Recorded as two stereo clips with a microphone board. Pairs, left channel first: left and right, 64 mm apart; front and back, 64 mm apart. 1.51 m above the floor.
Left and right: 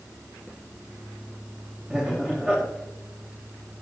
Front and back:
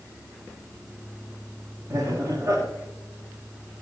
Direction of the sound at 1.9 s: 165° right.